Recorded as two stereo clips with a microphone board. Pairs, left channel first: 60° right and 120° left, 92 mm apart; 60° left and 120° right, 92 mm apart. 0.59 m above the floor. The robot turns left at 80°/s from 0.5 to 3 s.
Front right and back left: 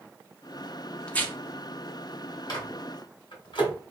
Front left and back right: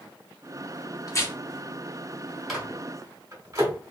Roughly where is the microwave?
Ahead right.